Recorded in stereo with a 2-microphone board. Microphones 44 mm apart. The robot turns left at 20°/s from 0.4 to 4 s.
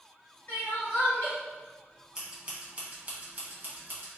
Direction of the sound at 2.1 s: 10° right (ahead or behind).